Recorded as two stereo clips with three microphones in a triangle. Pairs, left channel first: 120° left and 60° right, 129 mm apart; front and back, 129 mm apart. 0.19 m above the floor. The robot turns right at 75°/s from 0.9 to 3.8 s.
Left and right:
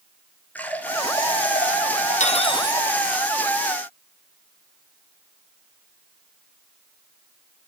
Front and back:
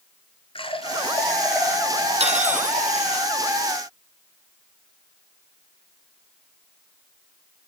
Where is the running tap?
45° left, 2.5 m; by 3.2 s 145° right, 2.5 m.